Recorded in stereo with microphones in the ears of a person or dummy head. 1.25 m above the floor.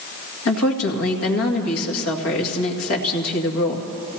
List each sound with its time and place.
0.5 s a woman speaking: 80° left, 2 m